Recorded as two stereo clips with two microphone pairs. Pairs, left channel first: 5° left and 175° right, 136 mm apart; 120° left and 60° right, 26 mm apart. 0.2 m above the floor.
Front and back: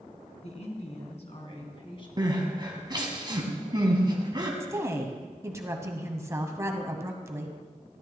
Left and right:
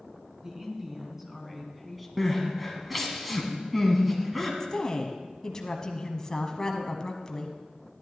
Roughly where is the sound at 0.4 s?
Ahead.